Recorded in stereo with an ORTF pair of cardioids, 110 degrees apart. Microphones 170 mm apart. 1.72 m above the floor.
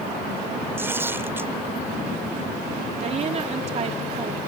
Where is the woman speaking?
40° right.